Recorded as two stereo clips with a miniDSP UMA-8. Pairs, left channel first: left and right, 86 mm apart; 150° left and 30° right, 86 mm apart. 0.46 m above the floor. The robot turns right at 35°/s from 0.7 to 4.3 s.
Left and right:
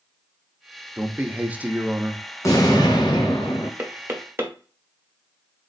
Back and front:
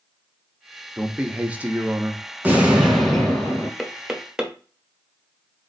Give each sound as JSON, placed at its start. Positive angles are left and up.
{"t": 1.0, "sound": "a man speaking", "azimuth_deg": -85, "distance_m": 0.7}
{"t": 2.4, "sound": "an explosion", "azimuth_deg": 40, "distance_m": 1.5}
{"t": 3.8, "sound": "knocking", "azimuth_deg": -125, "distance_m": 0.9}